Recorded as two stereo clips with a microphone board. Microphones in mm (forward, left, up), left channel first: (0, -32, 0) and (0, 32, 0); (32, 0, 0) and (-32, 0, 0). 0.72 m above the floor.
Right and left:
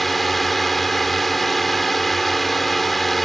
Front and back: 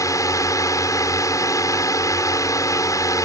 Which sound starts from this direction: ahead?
A drone, at 0.0 s.